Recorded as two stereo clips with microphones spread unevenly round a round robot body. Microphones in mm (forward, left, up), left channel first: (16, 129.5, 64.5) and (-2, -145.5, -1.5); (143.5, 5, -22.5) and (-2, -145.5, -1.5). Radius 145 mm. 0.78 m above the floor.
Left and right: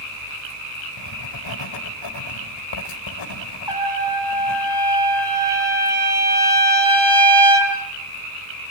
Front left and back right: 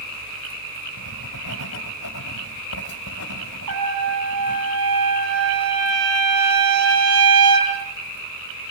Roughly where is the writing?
Left.